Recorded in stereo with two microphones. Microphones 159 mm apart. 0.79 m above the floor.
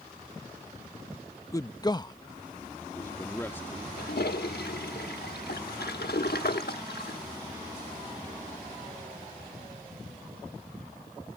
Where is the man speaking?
20° left (ahead or behind); by 3.9 s 10° left (ahead or behind).